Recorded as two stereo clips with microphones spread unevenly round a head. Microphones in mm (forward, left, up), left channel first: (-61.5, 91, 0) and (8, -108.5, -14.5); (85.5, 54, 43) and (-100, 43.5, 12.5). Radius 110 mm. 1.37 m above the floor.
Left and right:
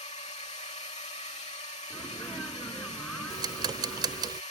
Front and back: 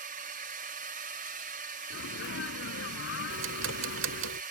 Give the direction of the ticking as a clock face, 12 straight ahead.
5 o'clock.